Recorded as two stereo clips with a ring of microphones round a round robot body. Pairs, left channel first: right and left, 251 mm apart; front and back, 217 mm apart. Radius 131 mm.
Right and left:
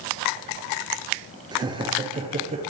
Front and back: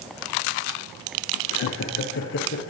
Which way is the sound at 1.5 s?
15° left.